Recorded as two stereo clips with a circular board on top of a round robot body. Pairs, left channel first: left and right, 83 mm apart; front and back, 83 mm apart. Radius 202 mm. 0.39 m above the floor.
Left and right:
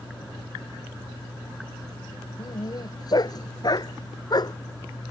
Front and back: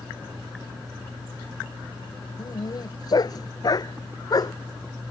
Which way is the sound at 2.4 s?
45° left.